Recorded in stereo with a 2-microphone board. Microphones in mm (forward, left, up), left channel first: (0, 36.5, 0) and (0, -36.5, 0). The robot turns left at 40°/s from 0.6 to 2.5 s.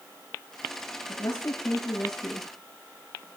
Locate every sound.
1.1 s a woman speaking: 50° left, 9 m; by 2.5 s 5° right, 9 m